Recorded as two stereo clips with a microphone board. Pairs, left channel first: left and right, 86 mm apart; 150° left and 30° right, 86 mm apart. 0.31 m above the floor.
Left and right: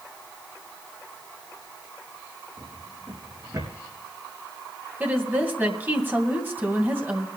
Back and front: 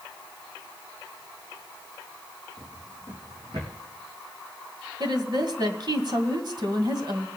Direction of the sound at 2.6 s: 55° right.